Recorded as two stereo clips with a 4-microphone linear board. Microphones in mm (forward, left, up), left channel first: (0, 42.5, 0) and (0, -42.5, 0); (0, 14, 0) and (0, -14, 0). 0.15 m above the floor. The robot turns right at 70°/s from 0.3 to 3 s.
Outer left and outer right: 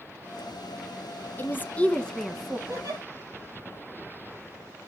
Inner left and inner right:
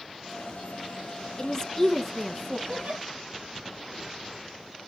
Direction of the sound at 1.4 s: 25° left (ahead or behind).